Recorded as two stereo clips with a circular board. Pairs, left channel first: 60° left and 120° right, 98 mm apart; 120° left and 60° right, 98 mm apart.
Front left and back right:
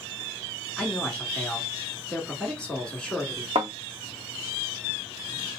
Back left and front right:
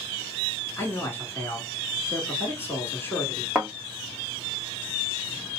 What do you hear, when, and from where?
0.8 s a man speaking: 130° left, 1.2 m
3.5 s a thud: 145° right, 1.5 m